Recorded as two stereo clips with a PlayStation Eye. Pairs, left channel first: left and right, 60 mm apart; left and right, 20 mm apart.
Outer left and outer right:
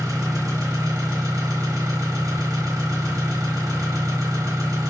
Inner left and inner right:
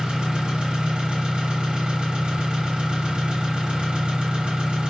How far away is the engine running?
About 1.7 m.